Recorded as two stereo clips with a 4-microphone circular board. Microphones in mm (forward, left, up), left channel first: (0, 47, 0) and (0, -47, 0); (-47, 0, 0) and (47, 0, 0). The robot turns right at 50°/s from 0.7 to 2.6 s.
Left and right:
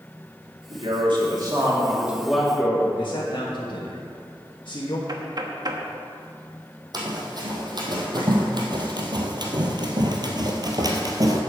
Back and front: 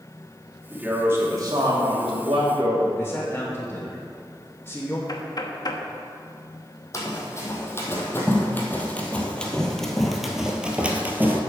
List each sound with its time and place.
0.7 s a man speaking: 85° right, 2.5 m; by 2.9 s 10° left, 2.5 m
3.0 s a man speaking: 115° left, 1.3 m
5.1 s knocking: 135° right, 1.0 m
6.9 s running footsteps: 125° right, 2.5 m; by 11.4 s 60° right, 1.5 m